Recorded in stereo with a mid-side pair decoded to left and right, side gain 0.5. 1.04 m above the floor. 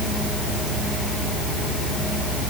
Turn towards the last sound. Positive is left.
No sound to turn to.